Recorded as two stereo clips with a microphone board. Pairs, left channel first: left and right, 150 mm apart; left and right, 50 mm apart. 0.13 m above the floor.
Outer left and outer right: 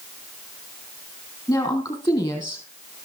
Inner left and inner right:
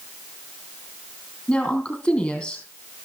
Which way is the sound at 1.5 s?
25° left (ahead or behind).